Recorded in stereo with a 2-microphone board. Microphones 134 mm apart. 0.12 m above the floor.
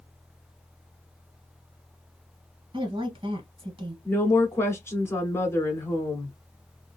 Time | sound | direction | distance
2.7 | a woman speaking | 40° right (ahead or behind) | 2 m
4.0 | a woman speaking | 15° left (ahead or behind) | 1.1 m